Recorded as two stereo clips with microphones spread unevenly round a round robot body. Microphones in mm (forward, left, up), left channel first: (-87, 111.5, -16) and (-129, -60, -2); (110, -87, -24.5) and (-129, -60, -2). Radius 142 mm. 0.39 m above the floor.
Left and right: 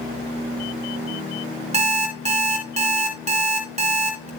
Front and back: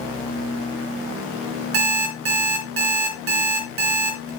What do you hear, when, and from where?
1.7 s an alarm clock: 155° right, 2.5 m